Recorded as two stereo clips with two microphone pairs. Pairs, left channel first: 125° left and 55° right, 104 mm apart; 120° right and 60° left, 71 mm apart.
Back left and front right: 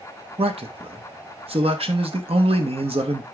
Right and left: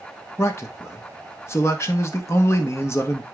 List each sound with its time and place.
0.4 s a man speaking: 70° right, 1.5 m